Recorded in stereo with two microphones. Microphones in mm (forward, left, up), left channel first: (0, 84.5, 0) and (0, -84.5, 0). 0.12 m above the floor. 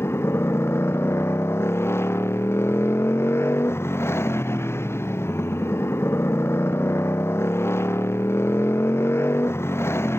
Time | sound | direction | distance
0.0 | a motorcycle | 15° left (ahead or behind) | ?